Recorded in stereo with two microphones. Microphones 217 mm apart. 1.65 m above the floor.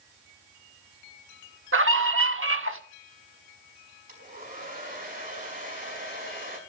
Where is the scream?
80° right, 1.4 m.